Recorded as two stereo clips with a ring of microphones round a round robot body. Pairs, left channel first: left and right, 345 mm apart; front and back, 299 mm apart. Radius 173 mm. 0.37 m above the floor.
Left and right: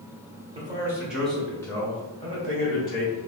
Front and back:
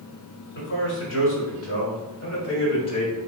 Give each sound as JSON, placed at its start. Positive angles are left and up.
{"t": 0.6, "sound": "a man speaking", "azimuth_deg": -25, "distance_m": 1.5}